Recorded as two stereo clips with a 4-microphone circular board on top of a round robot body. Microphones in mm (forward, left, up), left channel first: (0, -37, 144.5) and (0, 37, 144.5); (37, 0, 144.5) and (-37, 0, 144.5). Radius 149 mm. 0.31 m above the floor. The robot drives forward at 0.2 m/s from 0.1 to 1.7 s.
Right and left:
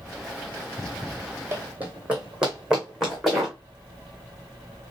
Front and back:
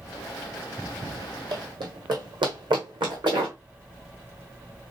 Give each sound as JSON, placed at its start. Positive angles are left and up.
{"t": 1.5, "sound": "running footsteps", "azimuth_deg": 155, "distance_m": 1.2}